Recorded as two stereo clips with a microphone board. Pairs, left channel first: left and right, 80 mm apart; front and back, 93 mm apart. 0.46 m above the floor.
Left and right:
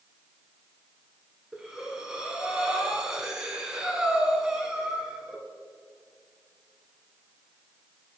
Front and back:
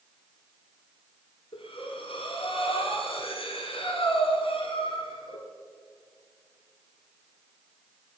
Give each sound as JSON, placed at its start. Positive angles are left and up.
{"t": 1.5, "sound": "breathing", "azimuth_deg": -10, "distance_m": 1.2}